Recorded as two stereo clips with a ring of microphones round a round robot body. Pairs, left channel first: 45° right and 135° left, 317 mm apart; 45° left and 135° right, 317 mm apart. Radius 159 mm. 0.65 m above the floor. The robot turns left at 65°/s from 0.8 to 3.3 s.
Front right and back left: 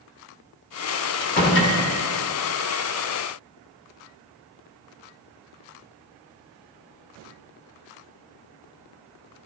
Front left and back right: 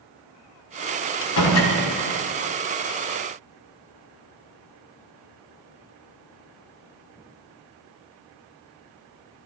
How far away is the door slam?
About 1.6 m.